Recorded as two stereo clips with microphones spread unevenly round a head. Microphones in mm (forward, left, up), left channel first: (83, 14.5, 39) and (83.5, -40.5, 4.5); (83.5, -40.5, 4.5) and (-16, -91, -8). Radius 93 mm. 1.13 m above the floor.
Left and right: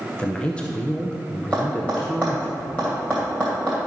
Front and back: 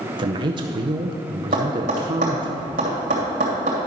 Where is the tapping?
165° left, 2.5 m.